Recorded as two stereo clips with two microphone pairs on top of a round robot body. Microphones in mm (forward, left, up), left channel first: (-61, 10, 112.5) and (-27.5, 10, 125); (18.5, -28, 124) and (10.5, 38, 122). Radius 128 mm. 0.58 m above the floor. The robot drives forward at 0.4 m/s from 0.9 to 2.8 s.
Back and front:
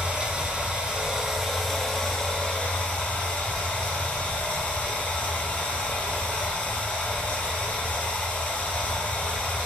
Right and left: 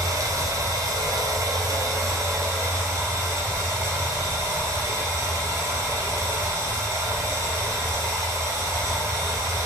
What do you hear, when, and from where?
0.0 s running water: 75° left, 0.7 m; by 9.7 s 140° left, 0.9 m